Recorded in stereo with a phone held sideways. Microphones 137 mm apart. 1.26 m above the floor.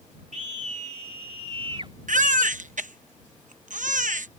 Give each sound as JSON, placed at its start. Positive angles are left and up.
{"t": 0.3, "sound": "a scream", "side_deg": -65}
{"t": 2.1, "sound": "a baby crying", "side_deg": -70}